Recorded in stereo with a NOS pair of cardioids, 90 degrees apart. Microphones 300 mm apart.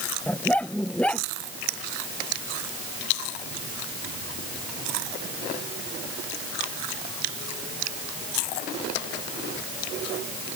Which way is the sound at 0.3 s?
5° left.